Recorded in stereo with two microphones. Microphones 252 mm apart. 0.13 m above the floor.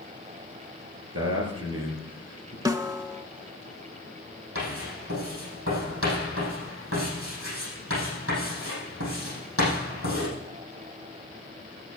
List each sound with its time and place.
1.1 s a man speaking: 60° right (ahead or behind), 3 m
2.6 s a snare drum: 15° right (ahead or behind), 0.5 m
4.5 s writing: 60° right (ahead or behind), 5.5 m